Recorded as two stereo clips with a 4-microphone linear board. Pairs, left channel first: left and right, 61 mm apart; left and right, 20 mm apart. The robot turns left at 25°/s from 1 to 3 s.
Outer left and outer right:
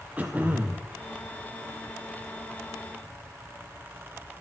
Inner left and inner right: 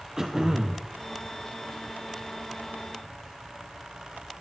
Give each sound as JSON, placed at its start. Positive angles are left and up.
{"t": 0.2, "sound": "throat clearing", "side_deg": -25, "distance_m": 1.9}